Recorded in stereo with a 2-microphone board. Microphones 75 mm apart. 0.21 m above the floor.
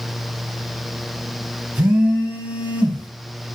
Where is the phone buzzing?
25° right (ahead or behind), 1.3 m.